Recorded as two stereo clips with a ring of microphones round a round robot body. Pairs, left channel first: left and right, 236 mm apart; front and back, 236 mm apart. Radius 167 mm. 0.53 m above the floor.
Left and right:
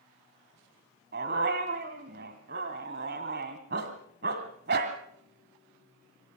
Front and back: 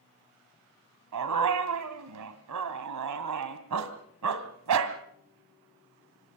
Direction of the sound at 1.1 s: 155° right.